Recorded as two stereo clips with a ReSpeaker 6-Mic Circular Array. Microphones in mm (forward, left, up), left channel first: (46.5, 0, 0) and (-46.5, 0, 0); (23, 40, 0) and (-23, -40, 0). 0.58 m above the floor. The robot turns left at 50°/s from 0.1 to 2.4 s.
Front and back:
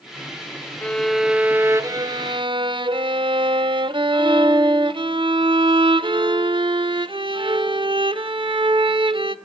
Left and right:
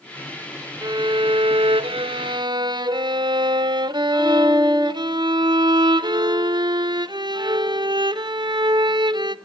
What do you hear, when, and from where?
0.8 s a violin: 75° right, 0.8 m; by 9.3 s 155° right, 0.8 m